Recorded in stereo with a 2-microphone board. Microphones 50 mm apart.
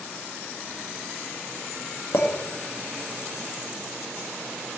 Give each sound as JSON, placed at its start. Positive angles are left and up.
{"t": 2.1, "sound": "a clink", "side_deg": 50, "distance_m": 1.7}